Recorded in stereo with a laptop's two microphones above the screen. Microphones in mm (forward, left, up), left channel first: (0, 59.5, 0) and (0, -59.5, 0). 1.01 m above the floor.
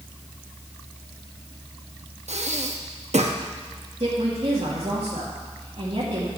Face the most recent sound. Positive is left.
turn(degrees=-65)  # may be behind; listen again after turning